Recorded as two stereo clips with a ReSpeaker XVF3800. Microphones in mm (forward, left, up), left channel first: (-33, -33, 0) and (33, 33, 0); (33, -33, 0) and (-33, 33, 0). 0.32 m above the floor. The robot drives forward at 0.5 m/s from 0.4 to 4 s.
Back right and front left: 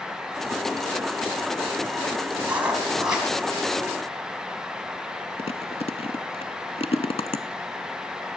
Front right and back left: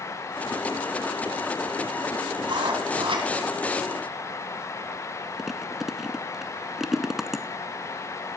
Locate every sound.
2.4 s writing: 120° left, 2 m; by 3.3 s 130° left, 2.5 m
5.4 s chewing: 140° right, 0.7 m